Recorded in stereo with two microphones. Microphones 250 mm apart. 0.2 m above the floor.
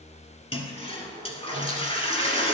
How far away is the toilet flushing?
About 1.1 m.